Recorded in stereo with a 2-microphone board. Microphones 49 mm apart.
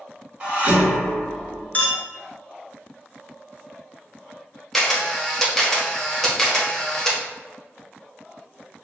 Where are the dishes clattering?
30° right (ahead or behind), 1.1 m.